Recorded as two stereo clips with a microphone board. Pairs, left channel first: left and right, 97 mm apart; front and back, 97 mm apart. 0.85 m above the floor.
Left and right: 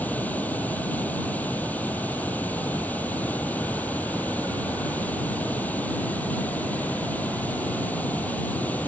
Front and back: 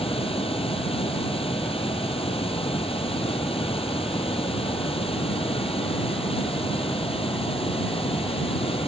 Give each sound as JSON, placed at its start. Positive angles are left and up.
{"t": 0.0, "sound": "running water", "azimuth_deg": 15}